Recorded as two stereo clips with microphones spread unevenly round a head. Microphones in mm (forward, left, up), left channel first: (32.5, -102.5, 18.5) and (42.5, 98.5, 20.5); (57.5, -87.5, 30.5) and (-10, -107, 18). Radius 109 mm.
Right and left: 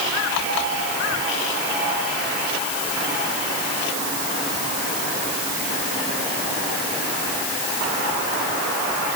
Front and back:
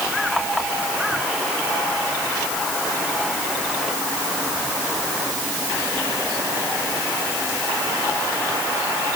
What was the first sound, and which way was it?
Only background noise.